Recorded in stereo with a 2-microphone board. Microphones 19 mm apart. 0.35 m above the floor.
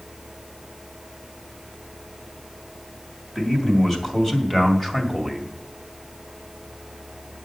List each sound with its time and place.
3.4 s a man speaking: 20° left (ahead or behind), 3 m; by 5.5 s 10° left (ahead or behind), 1.8 m